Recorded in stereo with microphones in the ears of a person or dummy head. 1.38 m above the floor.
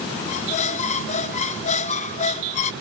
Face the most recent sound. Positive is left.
turn(degrees=40)  # may be behind; listen again after turning